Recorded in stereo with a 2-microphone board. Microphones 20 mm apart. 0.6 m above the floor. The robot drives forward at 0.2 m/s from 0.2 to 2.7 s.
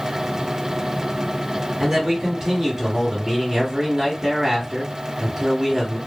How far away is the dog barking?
I don't hear a dog barking.